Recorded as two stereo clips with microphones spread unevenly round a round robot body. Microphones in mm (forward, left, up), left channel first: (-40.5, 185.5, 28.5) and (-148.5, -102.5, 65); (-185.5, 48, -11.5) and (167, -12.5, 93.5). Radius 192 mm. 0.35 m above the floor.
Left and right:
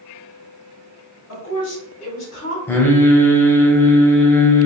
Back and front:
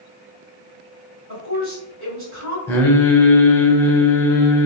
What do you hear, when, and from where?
1.3 s a woman speaking: 50° left, 2.0 m
2.7 s singing: 130° left, 0.8 m